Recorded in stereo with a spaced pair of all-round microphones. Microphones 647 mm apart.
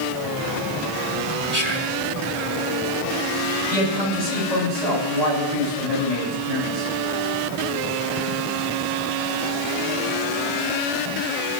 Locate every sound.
1.5 s whispering: 20° left (ahead or behind), 3 m
3.7 s a man speaking: 75° left (ahead or behind), 9.5 m